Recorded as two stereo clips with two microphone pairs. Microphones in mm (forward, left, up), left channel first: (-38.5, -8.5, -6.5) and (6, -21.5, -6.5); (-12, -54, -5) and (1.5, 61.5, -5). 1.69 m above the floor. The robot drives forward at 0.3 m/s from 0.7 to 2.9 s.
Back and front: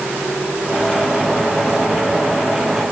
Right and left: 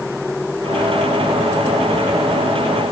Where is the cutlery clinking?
No cutlery clinking in this recording.